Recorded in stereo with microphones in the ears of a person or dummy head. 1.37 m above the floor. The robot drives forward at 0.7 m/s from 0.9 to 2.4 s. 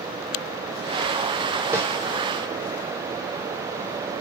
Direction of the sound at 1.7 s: 15° right (ahead or behind).